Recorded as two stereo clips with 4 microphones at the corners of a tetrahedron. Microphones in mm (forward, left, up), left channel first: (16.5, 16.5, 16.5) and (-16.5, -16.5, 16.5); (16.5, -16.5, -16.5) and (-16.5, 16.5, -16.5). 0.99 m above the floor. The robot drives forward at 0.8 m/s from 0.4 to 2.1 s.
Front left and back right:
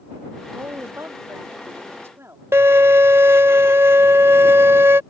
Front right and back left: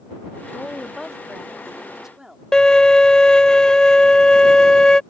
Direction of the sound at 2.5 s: 120° right.